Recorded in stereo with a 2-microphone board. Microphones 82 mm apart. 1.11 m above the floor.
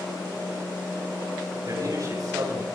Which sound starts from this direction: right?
A man speaking, at 1.6 s.